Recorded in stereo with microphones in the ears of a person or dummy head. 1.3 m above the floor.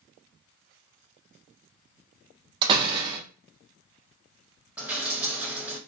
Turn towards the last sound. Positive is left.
turn(degrees=-10)  # may be behind; listen again after turning